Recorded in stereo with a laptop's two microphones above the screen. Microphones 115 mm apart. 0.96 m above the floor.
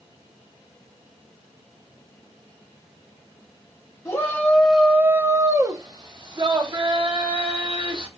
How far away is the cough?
I don't hear a cough.